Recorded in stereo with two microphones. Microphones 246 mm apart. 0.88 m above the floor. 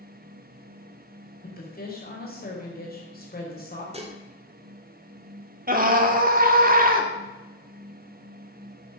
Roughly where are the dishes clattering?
Right.